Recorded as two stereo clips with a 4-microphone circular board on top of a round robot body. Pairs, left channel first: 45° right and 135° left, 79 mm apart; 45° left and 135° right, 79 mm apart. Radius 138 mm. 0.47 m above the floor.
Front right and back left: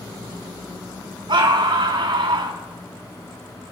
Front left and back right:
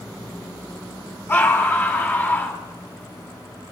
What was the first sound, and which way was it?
A scream, 110° left.